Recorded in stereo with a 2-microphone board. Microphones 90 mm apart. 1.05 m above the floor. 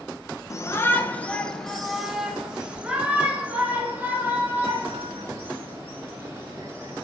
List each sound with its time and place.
0.5 s a shout: 35° left (ahead or behind), 1.0 m; by 7.0 s 30° right (ahead or behind), 4 m